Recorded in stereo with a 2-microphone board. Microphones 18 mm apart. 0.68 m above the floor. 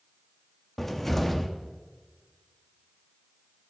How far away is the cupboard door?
About 0.9 m.